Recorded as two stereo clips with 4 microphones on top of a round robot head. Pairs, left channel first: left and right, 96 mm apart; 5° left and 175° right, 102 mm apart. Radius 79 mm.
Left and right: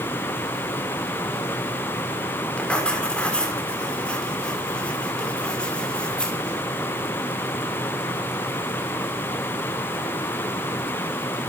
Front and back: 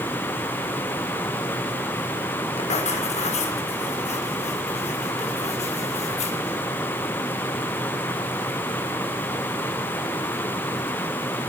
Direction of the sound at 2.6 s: 10° left.